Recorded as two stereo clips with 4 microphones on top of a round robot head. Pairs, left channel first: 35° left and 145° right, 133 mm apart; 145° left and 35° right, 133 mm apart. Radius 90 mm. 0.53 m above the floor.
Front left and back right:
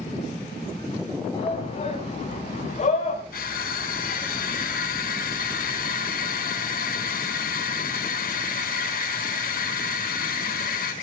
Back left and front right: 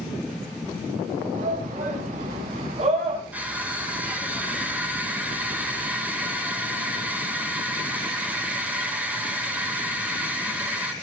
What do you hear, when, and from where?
1.3 s a shout: 10° right, 5 m; by 3.2 s 5° left, 5 m
3.3 s crushing: 45° left, 3.5 m